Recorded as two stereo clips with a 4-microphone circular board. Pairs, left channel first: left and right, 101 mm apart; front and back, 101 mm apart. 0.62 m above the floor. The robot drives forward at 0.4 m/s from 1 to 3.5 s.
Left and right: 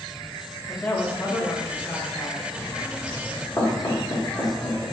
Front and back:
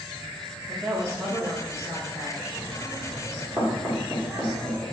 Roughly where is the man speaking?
Behind left.